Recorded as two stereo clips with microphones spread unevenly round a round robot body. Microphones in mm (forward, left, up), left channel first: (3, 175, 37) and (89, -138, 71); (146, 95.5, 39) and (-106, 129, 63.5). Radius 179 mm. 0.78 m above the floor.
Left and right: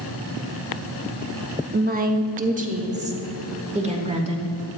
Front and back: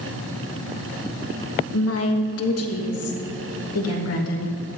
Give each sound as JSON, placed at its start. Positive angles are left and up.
{"t": 1.7, "sound": "a woman speaking", "azimuth_deg": -15, "distance_m": 1.1}